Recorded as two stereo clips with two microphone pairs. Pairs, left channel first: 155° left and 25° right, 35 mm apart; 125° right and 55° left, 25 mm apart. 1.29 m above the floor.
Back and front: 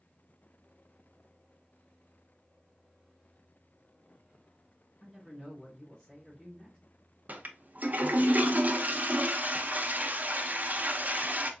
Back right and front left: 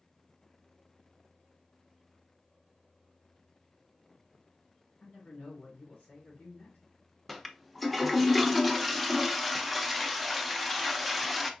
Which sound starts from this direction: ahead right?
A toilet flushing, at 7.3 s.